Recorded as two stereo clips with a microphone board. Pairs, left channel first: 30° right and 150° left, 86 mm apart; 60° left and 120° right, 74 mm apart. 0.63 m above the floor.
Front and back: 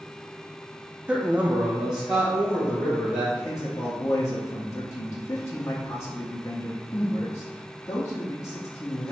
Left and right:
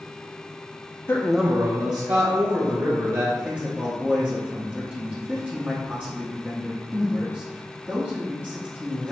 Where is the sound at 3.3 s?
60° right, 0.7 m.